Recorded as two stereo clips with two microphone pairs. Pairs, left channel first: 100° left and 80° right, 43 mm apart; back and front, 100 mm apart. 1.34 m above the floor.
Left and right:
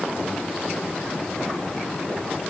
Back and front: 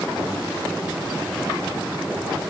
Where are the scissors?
No scissors in this recording.